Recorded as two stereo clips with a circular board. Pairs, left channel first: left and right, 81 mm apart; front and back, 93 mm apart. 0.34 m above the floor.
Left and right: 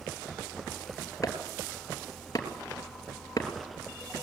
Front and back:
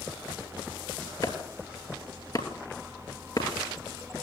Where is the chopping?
45° left, 3 m.